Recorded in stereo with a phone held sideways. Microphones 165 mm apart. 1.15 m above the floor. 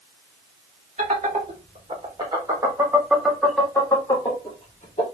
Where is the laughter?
45° right (ahead or behind), 1.8 m; by 5.0 s 45° left (ahead or behind), 1.3 m.